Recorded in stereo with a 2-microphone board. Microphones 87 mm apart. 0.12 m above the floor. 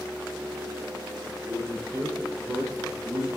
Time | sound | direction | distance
1.5 | a man speaking | 45° right (ahead or behind) | 2.5 m